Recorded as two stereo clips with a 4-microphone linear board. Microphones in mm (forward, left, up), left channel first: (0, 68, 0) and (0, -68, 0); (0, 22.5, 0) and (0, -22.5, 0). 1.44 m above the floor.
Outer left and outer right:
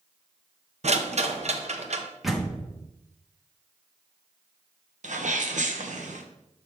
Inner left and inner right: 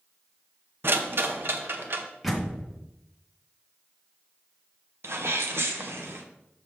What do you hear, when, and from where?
0.8 s a rattle: 60° right (ahead or behind), 0.7 m
2.2 s a door slam: centre (ahead or behind), 1.3 m
5.0 s a sneeze: 75° right (ahead or behind), 1.0 m